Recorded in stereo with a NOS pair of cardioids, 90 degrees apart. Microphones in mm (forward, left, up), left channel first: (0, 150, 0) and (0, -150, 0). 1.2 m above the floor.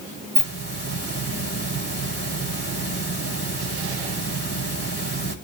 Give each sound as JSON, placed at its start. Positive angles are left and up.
{"t": 0.3, "sound": "a hiss", "azimuth_deg": -40, "distance_m": 4.5}